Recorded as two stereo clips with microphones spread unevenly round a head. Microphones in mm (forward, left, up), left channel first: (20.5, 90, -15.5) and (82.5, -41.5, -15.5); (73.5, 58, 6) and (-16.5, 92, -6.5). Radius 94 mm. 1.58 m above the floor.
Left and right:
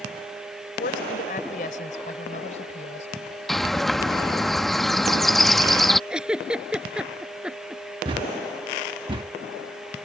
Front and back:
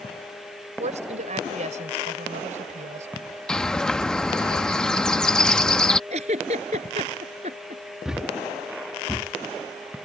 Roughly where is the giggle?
Behind right.